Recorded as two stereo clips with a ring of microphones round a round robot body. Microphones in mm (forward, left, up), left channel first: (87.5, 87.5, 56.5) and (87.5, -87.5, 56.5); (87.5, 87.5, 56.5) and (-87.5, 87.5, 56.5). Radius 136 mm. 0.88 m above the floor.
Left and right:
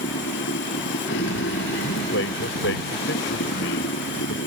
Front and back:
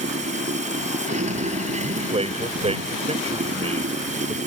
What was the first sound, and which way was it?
Running water, 130° left.